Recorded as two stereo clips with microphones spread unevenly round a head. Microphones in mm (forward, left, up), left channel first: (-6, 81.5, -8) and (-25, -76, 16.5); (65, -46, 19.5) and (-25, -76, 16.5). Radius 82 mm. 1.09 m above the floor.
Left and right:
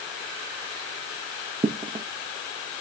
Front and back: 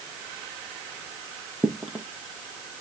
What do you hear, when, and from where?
1.6 s footsteps: 75° right, 1.3 m